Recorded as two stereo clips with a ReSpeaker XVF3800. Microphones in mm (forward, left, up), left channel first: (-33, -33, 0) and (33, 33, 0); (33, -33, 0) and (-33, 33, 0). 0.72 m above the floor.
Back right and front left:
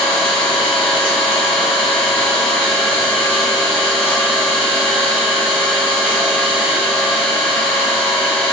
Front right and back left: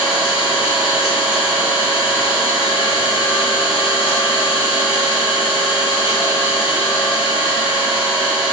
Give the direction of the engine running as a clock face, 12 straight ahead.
2 o'clock.